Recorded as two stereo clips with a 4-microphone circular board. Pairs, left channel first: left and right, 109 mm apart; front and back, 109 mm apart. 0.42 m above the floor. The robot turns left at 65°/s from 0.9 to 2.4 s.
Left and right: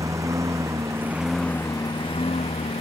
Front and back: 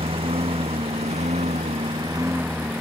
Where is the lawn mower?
150° right; by 2.8 s 105° left.